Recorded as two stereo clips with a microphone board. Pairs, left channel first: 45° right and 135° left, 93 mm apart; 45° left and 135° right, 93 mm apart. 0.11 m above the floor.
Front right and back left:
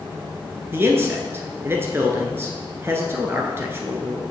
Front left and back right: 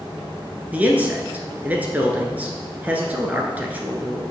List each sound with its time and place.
0.7 s a man speaking: 170° left, 1.2 m